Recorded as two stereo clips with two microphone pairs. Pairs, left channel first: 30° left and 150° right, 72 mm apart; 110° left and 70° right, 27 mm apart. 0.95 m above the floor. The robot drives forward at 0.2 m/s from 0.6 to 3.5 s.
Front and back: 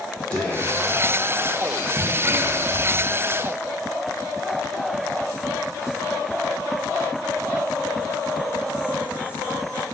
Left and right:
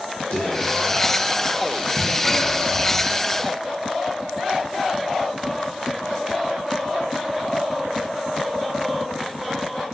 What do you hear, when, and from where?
0.3 s whispering: 100° left, 0.5 m; by 3.3 s 145° left, 0.8 m